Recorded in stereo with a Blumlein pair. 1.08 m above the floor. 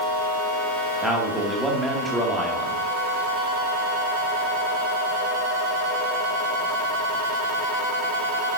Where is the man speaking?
5° right, 2 m.